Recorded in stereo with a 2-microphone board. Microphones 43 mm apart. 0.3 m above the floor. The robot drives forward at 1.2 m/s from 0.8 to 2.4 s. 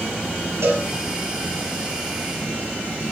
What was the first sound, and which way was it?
A cowbell, 80° right.